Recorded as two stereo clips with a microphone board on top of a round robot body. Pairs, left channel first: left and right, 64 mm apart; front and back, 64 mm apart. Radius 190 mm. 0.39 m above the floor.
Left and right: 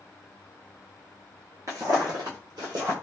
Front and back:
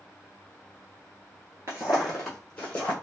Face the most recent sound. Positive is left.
turn(degrees=-60)